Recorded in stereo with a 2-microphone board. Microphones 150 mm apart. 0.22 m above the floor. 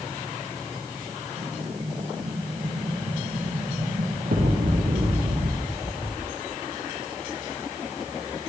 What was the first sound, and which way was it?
An explosion, 75° right (ahead or behind).